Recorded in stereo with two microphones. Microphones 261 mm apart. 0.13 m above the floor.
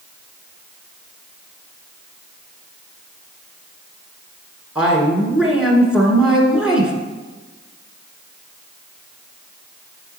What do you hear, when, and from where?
4.8 s a woman speaking: 5° right (ahead or behind), 1.3 m